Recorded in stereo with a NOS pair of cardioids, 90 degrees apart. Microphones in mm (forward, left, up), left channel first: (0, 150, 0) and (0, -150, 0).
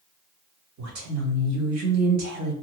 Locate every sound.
0.8 s a woman speaking: 60° right, 1.4 m